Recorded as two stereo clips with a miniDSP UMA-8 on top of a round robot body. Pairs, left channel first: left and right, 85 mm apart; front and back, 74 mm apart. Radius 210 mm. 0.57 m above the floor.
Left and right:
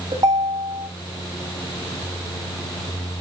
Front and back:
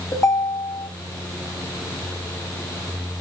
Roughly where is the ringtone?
Ahead right.